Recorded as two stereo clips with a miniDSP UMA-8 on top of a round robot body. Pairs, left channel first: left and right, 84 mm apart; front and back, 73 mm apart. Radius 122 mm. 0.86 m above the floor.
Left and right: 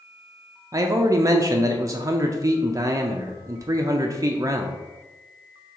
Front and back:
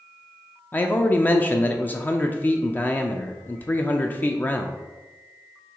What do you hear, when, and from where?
0.7 s a man speaking: 55° right, 0.5 m